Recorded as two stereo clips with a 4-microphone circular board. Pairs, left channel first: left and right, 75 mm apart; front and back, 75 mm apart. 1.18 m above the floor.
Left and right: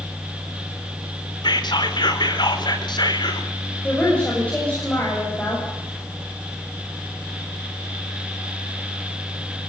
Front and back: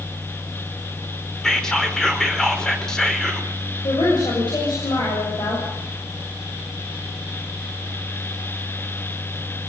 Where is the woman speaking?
15° left, 7.5 m.